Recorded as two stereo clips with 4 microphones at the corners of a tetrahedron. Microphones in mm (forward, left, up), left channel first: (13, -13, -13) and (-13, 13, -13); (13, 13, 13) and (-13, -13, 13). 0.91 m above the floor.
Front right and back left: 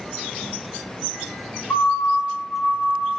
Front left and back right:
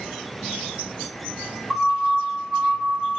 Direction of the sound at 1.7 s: 55° right.